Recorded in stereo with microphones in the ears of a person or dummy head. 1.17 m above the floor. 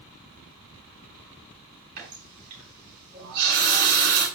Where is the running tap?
50° right (ahead or behind), 7 m.